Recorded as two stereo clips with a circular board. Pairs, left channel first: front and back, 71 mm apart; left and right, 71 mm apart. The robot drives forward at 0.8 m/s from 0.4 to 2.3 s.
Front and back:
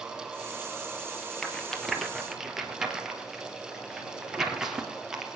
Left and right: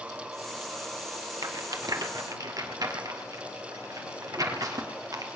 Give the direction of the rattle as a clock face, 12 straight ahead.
3 o'clock.